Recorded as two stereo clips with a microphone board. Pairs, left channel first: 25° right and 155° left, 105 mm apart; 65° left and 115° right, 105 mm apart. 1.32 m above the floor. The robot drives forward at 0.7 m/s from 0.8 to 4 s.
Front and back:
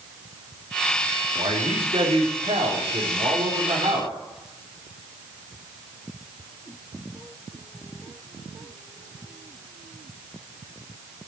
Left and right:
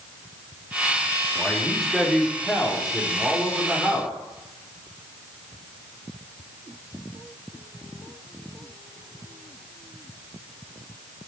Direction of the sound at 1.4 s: 155° left.